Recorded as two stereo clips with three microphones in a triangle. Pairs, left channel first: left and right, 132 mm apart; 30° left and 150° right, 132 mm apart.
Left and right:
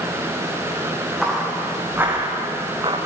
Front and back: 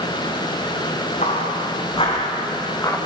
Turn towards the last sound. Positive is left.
turn(degrees=-40)